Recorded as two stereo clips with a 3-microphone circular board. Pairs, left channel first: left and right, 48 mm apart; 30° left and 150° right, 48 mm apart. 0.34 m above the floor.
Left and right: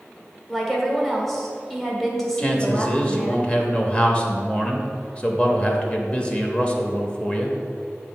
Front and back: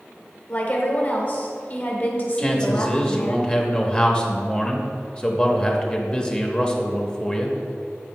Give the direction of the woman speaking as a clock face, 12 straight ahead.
12 o'clock.